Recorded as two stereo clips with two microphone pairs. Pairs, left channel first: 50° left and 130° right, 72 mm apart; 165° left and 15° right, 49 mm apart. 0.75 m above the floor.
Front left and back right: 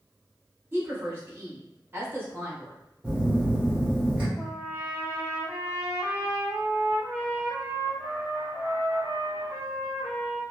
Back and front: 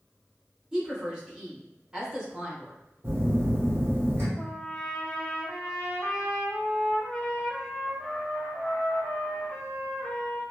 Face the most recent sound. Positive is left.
turn(degrees=80)